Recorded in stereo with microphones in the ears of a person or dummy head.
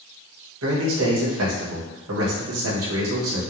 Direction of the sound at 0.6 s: 75° right (ahead or behind).